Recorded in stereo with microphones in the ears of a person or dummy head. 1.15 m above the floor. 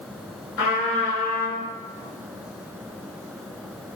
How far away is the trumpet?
About 1.8 m.